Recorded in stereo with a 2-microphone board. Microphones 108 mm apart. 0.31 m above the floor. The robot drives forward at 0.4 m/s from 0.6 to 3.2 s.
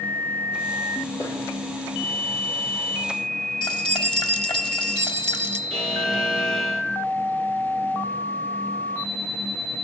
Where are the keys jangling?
55° left (ahead or behind), 1.0 m.